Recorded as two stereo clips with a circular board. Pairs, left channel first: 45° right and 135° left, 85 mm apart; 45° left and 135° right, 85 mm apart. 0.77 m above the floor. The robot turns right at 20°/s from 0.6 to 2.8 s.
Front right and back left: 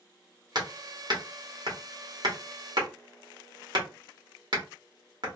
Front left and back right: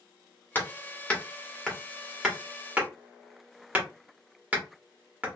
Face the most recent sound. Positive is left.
turn(degrees=155)